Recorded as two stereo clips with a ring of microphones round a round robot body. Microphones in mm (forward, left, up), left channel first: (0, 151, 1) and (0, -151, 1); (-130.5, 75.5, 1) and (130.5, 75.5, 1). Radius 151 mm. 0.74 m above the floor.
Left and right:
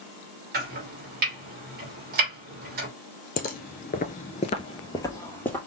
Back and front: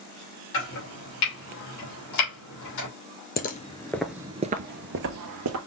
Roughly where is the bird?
No bird in this recording.